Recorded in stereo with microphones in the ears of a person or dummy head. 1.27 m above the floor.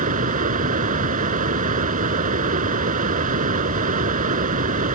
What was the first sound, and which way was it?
Running water, 45° right (ahead or behind).